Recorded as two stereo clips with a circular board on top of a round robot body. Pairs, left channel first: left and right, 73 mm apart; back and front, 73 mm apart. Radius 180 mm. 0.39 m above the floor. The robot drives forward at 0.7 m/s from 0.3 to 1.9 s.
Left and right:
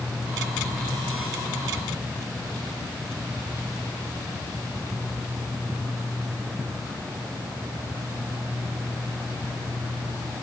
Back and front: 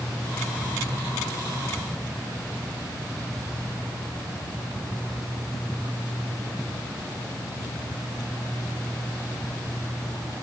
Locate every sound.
Only background noise.